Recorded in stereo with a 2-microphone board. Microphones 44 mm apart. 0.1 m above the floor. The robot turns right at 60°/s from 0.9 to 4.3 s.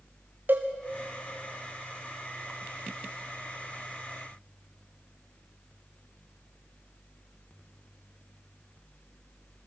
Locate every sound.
0.5 s a cowbell: 50° right (ahead or behind), 2.5 m